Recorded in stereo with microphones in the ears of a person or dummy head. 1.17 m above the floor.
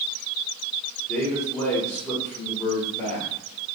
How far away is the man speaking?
About 0.9 m.